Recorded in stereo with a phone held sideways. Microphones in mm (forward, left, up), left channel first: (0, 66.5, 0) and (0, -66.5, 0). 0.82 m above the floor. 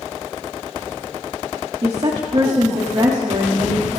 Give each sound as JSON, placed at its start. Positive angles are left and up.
{"t": 1.8, "sound": "a woman speaking", "side_deg": -50, "distance_m": 1.6}